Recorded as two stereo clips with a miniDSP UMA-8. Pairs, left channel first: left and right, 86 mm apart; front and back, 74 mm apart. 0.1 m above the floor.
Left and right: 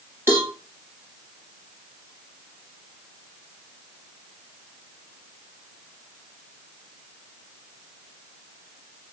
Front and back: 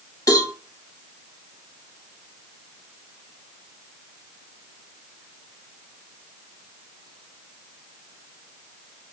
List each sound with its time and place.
0.3 s a cowbell: 30° right, 2 m